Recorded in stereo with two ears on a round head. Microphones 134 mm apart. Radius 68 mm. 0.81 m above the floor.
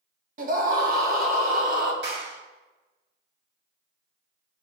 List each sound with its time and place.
0.4 s a scream: 60° right (ahead or behind), 1.9 m
2.0 s a clap: 85° right, 4.5 m